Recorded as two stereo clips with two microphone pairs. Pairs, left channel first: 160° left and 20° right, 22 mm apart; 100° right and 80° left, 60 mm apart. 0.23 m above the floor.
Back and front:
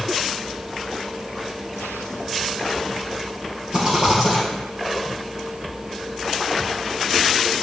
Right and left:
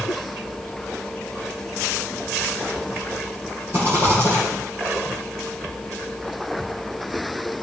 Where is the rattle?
30° left, 2 m.